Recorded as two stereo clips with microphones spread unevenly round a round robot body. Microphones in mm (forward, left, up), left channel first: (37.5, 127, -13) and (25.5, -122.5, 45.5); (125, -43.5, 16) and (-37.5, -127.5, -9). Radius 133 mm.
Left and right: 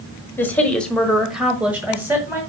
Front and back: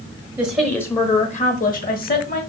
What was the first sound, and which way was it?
A woman speaking, 145° left.